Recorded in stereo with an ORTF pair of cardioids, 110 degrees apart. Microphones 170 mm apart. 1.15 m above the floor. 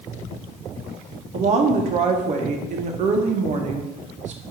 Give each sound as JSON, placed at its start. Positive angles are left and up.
{"t": 1.3, "sound": "a woman speaking", "azimuth_deg": -45, "distance_m": 0.7}